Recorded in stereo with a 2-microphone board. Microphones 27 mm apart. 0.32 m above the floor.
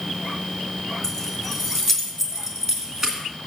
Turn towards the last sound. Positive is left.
turn(degrees=-20)  # may be behind; listen again after turning